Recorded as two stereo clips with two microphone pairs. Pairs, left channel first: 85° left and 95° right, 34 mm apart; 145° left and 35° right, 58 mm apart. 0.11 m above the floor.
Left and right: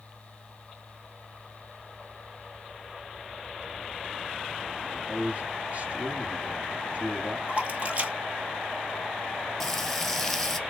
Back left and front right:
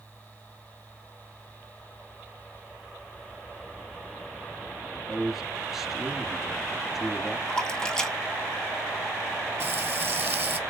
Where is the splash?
140° right, 1.0 m.